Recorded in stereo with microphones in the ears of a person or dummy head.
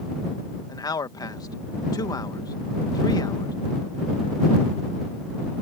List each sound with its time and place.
0.7 s a man speaking: 20° left (ahead or behind)